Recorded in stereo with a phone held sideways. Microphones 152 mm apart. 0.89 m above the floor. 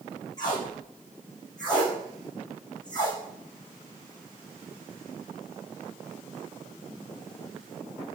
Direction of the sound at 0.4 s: 25° left (ahead or behind).